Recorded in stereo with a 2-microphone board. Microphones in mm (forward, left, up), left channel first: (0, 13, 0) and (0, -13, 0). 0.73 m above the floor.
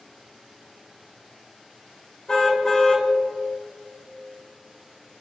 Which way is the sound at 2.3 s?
25° left (ahead or behind).